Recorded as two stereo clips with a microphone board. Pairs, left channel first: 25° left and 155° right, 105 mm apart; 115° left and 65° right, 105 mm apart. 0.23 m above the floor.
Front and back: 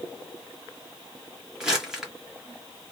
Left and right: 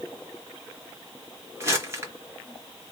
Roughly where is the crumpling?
Right.